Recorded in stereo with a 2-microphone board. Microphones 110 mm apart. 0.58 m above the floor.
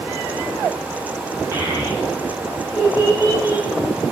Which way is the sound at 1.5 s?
20° right (ahead or behind).